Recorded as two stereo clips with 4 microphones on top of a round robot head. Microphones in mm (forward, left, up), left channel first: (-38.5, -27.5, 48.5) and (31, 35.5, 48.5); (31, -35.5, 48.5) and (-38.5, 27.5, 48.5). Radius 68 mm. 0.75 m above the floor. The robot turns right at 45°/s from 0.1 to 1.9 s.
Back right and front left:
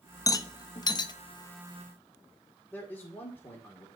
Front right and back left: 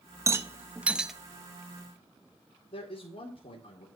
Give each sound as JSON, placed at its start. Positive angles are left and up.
{"t": 0.3, "sound": "a rattle", "azimuth_deg": -175, "distance_m": 0.9}
{"t": 2.7, "sound": "a man speaking", "azimuth_deg": -65, "distance_m": 2.0}